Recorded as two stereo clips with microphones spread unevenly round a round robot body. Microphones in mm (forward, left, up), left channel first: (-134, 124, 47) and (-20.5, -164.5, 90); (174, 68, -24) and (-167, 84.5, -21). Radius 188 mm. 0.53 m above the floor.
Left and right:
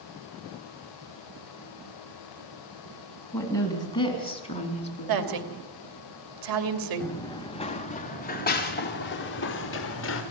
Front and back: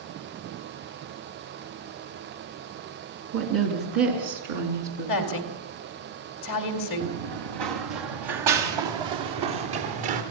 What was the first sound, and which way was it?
A woman speaking, 165° right.